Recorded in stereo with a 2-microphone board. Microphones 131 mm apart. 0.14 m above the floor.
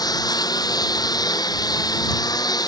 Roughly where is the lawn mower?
Left.